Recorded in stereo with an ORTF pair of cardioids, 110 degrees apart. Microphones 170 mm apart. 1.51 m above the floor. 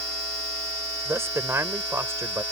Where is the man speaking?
15° right.